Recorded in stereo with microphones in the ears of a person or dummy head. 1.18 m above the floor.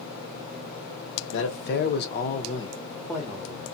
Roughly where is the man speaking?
Left.